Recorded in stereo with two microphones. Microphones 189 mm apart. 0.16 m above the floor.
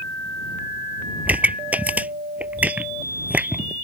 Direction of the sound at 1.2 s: 10° right (ahead or behind).